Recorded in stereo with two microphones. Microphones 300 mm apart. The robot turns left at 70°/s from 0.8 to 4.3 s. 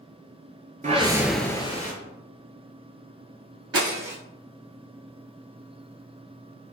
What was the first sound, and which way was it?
A whoosh, 145° right.